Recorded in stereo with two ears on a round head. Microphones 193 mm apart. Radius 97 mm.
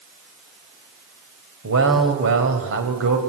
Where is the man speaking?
65° right (ahead or behind), 4.5 m.